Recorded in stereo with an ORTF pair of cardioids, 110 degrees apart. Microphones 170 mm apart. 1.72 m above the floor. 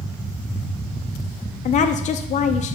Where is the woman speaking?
45° left, 0.8 m.